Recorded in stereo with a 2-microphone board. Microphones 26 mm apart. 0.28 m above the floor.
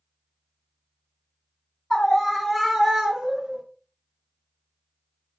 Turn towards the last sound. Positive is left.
turn(degrees=-20)  # may be behind; listen again after turning